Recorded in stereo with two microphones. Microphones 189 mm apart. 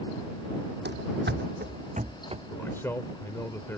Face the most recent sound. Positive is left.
turn(degrees=15)  # may be behind; listen again after turning